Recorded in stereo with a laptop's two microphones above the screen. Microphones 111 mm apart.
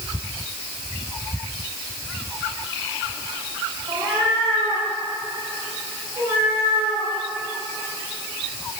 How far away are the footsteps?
I don't hear footsteps.